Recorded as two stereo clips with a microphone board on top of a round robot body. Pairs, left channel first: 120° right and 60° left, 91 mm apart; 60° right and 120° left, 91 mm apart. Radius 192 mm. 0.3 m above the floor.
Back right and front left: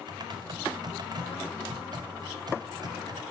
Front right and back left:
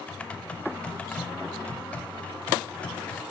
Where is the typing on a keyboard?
15° left, 0.6 m.